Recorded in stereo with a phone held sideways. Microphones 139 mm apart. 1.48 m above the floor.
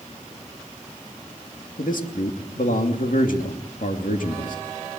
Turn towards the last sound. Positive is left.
turn(degrees=75)  # may be behind; listen again after turning